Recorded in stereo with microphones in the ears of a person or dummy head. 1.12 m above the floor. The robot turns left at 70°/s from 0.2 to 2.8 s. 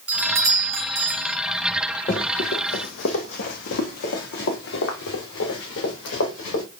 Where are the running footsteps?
15° left (ahead or behind), 1.2 m; by 6.6 s 75° left (ahead or behind), 5.5 m.